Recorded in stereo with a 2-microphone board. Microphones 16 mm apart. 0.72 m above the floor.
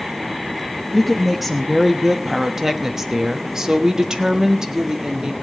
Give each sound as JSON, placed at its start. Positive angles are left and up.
{"t": 0.9, "sound": "a woman speaking", "side_deg": 5, "distance_m": 1.3}